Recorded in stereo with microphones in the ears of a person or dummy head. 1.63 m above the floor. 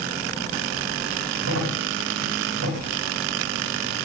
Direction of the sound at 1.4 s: 70° right (ahead or behind).